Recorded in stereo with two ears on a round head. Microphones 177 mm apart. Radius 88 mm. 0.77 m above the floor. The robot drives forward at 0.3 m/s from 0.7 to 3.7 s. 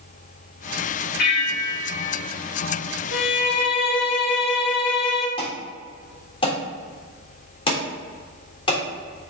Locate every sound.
1.2 s a bell: 55° left (ahead or behind), 3 m; by 2.2 s 60° left (ahead or behind), 3 m
3.1 s a violin: 60° left (ahead or behind), 1.2 m; by 5.3 s 55° left (ahead or behind), 1.3 m
5.4 s an alarm: 30° left (ahead or behind), 3.5 m